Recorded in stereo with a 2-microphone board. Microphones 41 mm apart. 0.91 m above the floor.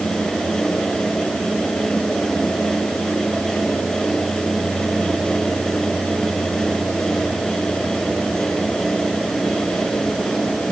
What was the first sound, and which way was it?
Only background noise.